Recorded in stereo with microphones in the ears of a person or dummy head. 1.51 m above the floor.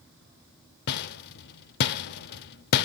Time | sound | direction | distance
0.9 | a rattle | 50° left (ahead or behind) | 0.5 m